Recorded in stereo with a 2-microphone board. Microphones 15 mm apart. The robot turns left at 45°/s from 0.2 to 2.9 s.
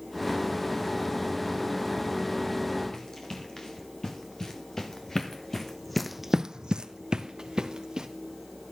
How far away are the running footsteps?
About 4.5 m.